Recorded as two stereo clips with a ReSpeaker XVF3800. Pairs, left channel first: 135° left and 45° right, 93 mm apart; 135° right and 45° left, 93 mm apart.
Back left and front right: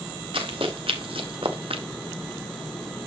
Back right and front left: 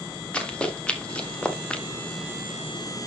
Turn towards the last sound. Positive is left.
turn(degrees=-55)